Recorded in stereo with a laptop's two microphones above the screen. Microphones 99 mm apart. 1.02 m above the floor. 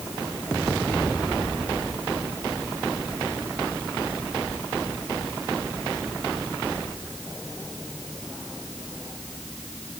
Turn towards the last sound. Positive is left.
No sound to turn to.